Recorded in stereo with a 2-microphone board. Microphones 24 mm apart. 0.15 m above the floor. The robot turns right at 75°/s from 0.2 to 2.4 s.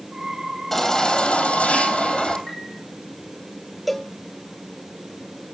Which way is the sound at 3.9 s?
Centre (ahead or behind).